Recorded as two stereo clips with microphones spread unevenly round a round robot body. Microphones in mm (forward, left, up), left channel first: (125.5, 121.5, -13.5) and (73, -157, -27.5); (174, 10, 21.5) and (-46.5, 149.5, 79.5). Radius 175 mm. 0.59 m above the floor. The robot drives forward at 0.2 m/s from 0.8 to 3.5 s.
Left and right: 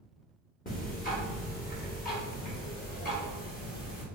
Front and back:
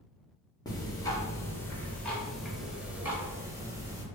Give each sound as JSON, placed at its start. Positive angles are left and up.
{"t": 0.7, "sound": "ticking", "azimuth_deg": 25, "distance_m": 1.3}